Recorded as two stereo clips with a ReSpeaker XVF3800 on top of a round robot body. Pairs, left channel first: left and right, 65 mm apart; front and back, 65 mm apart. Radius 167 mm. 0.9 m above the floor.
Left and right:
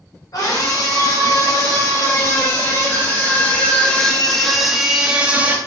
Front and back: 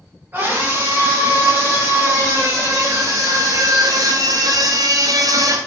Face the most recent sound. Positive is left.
turn(degrees=-155)